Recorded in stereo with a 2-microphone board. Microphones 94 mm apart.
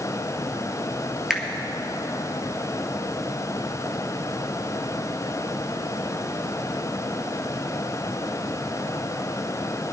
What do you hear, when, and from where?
1.3 s a finger snap: 5° right (ahead or behind), 1.4 m